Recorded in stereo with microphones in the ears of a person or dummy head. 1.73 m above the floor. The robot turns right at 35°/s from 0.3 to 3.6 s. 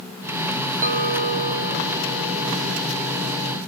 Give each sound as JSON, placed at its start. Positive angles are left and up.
{"t": 0.8, "sound": "a clink", "azimuth_deg": -45, "distance_m": 1.7}